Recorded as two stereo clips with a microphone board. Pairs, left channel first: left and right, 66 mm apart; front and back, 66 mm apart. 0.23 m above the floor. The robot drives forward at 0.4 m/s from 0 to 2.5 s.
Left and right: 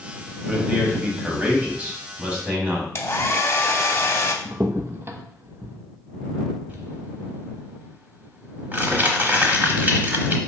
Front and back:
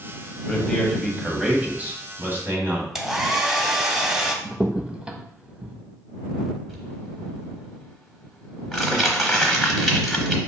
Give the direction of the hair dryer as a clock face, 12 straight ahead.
9 o'clock.